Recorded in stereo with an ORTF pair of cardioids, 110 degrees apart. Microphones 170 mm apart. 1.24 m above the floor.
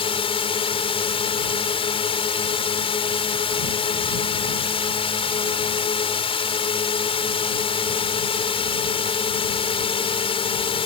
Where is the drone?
35° left.